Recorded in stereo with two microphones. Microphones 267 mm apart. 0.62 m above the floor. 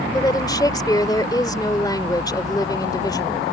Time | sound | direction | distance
0.1 | a woman speaking | 15° left (ahead or behind) | ?